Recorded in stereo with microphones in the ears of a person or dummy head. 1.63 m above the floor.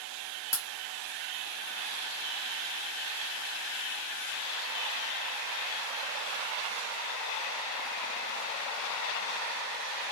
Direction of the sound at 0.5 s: 15° left (ahead or behind).